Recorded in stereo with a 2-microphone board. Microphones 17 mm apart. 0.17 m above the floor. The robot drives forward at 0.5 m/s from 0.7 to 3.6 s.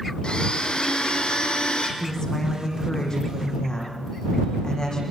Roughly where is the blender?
Left.